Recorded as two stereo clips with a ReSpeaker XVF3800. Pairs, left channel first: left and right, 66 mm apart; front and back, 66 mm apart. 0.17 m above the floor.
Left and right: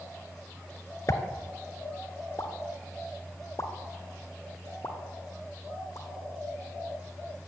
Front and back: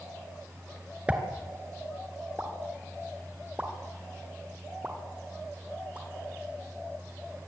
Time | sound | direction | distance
1.1 | a pop | 115° left | 2 m